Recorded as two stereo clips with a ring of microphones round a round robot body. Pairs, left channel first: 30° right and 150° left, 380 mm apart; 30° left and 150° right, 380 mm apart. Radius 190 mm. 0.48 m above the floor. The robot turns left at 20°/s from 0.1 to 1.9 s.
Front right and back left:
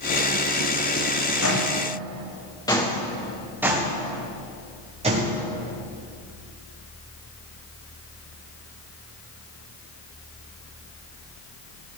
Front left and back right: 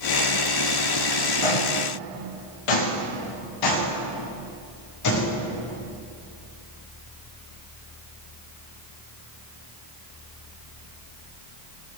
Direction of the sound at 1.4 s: 25° left.